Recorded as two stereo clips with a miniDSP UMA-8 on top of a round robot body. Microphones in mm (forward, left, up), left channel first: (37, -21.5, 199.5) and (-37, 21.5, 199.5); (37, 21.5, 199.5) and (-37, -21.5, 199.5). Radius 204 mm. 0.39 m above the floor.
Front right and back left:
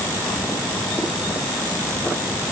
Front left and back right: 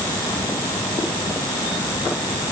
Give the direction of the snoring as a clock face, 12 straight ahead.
No snoring in this recording.